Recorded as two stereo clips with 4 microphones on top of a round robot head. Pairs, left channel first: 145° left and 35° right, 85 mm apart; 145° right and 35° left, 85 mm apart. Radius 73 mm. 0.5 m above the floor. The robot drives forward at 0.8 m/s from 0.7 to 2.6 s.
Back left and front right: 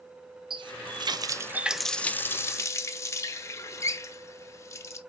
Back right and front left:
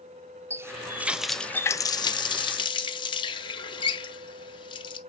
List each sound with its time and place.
0.5 s a running tap: 20° right, 0.9 m; by 5.0 s 160° right, 1.0 m